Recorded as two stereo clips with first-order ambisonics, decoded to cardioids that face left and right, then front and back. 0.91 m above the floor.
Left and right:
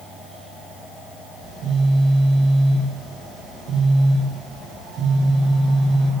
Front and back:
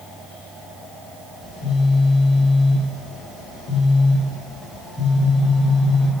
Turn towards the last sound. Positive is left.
turn(degrees=-40)